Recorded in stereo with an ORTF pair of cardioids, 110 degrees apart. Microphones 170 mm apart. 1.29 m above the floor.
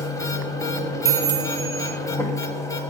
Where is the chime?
15° right, 0.7 m.